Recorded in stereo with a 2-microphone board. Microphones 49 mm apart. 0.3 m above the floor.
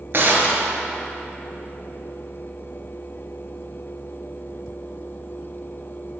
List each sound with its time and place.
0.1 s a gunshot: 50° right (ahead or behind), 1.2 m